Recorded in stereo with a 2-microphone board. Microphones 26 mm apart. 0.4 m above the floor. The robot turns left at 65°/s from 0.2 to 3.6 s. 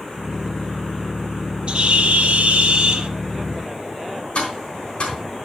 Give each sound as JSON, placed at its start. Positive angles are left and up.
{"t": 1.7, "sound": "a bird", "azimuth_deg": -50, "distance_m": 0.7}
{"t": 4.3, "sound": "tapping", "side_deg": 50, "distance_m": 3.5}